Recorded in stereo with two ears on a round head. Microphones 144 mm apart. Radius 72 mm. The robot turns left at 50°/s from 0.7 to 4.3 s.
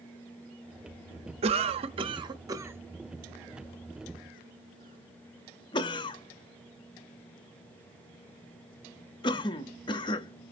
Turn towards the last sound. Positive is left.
turn(degrees=30)  # may be behind; listen again after turning